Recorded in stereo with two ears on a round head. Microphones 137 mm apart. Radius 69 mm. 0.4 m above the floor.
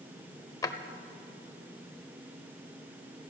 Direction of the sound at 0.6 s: 25° left (ahead or behind).